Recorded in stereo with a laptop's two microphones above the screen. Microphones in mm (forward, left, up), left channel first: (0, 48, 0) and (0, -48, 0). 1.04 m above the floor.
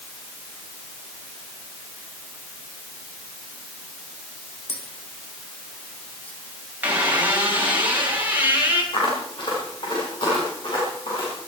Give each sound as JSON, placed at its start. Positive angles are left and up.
{"t": 4.7, "sound": "tapping", "side_deg": 15, "distance_m": 3.5}
{"t": 6.8, "sound": "a squeak", "side_deg": -20, "distance_m": 6.5}
{"t": 8.9, "sound": "footsteps", "side_deg": 65, "distance_m": 7.0}